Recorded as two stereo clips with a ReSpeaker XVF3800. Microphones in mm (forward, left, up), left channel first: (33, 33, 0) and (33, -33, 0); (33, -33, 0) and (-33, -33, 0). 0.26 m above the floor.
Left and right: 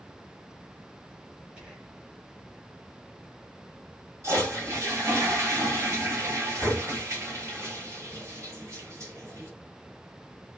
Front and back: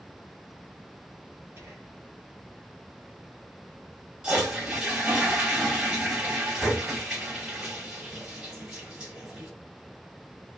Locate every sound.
1.6 s whispering: 160° right, 1.5 m
4.2 s a toilet flushing: 105° right, 1.9 m